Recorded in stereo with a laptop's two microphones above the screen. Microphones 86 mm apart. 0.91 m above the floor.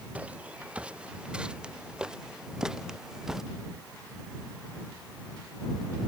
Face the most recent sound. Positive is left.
turn(degrees=-5)  # may be behind; listen again after turning